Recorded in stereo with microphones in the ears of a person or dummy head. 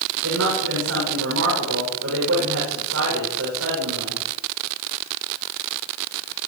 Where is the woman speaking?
85° right, 8 m.